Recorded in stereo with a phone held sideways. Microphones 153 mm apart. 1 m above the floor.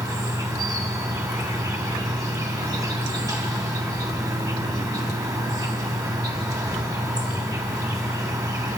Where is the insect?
25° right (ahead or behind), 2.5 m.